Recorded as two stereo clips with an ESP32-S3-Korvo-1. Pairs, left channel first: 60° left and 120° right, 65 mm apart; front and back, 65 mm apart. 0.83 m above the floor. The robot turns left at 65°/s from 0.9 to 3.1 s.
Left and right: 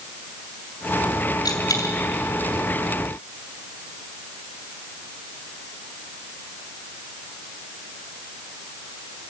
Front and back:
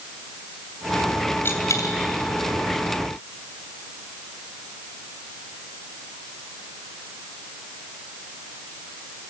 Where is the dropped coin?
55° left, 2.5 m; by 1.9 s 25° left, 2.5 m.